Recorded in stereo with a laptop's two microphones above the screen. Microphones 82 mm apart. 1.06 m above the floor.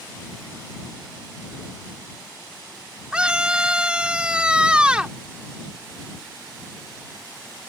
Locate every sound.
3.1 s a scream: 10° right (ahead or behind)